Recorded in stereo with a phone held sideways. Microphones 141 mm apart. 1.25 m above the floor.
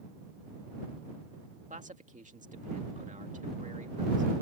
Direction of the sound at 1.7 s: 60° right (ahead or behind).